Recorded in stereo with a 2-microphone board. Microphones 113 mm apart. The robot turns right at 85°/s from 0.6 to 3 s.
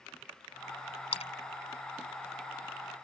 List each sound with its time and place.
1.1 s a splash: 55° left (ahead or behind); by 1.3 s 60° left (ahead or behind)